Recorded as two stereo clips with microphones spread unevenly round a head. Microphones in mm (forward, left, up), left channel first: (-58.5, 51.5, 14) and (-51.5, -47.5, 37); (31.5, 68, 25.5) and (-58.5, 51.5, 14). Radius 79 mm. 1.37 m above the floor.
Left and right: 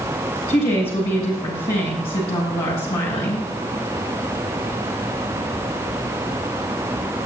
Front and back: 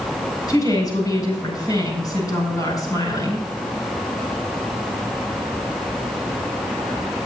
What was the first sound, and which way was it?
A woman speaking, 60° left.